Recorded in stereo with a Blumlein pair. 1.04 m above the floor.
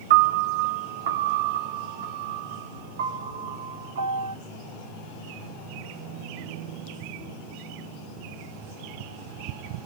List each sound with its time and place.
0.1 s a piano: 60° right, 1.1 m